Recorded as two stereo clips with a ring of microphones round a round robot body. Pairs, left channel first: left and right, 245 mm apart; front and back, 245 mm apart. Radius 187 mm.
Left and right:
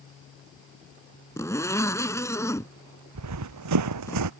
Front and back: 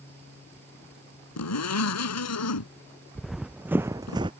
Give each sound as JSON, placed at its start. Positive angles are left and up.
{"t": 1.4, "sound": "a zipper", "azimuth_deg": 10}
{"t": 3.1, "sound": "running footsteps", "azimuth_deg": -90}